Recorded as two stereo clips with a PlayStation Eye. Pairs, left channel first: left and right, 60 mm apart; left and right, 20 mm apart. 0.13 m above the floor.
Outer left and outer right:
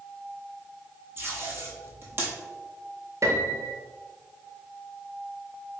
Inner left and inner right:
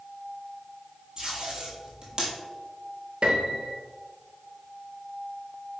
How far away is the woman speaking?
I don't hear a woman speaking.